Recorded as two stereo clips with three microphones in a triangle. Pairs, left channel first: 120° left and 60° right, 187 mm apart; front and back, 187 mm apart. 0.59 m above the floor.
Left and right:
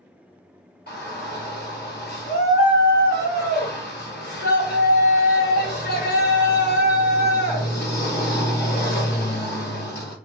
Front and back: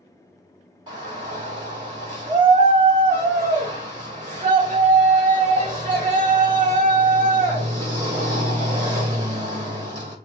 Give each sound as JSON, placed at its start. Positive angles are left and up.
{"t": 0.9, "sound": "a shout", "azimuth_deg": 120, "distance_m": 1.7}